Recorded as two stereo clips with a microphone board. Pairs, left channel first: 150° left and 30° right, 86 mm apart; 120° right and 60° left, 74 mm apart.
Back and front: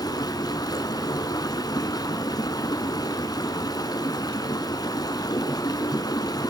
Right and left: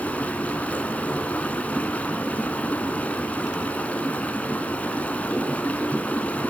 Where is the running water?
175° left, 2.0 m.